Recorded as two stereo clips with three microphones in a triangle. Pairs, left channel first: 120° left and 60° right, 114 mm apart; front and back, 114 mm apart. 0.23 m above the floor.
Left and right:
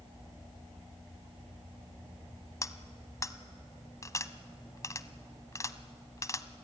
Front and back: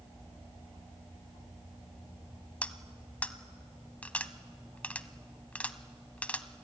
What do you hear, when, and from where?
2.6 s cutlery clinking: 75° left, 1.0 m